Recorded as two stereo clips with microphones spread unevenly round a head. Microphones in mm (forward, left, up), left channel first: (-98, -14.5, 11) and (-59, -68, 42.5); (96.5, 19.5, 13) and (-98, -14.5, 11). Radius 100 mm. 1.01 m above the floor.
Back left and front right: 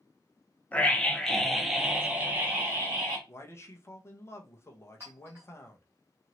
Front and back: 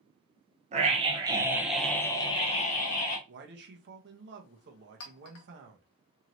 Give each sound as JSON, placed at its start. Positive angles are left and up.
{"t": 0.7, "sound": "a scream", "azimuth_deg": 150, "distance_m": 0.9}
{"t": 3.3, "sound": "a man speaking", "azimuth_deg": 160, "distance_m": 0.8}
{"t": 5.0, "sound": "a clink", "azimuth_deg": 25, "distance_m": 0.7}